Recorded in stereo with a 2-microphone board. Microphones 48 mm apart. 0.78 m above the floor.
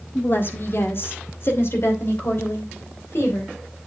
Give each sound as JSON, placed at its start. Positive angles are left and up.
{"t": 0.1, "sound": "a woman speaking", "side_deg": 45, "distance_m": 1.6}